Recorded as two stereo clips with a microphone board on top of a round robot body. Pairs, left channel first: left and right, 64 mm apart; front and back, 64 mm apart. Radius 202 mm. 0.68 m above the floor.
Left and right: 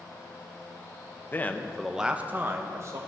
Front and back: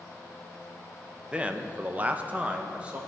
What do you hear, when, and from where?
1.3 s a man speaking: 120° left, 1.3 m; by 3.0 s 110° right, 1.7 m